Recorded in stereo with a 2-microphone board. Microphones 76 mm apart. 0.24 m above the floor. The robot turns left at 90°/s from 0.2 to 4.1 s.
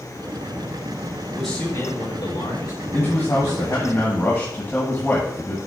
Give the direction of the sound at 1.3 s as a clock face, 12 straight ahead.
6 o'clock.